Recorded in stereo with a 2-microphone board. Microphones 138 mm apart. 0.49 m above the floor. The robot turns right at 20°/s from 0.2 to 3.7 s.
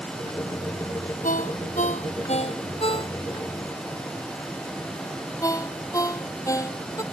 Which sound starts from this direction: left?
A ringtone, at 1.2 s.